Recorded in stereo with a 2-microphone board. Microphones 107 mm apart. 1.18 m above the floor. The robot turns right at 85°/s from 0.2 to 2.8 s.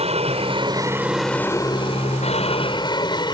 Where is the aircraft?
85° right; by 3.4 s 135° left.